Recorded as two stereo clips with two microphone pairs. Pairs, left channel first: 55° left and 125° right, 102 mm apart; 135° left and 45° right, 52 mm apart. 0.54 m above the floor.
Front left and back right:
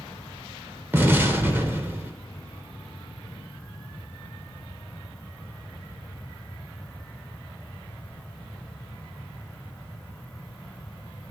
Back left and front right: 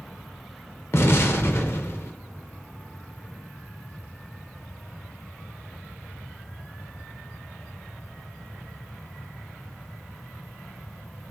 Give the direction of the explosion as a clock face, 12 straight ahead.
6 o'clock.